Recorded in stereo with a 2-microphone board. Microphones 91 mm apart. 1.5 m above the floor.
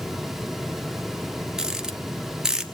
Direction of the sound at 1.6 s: 5° right (ahead or behind).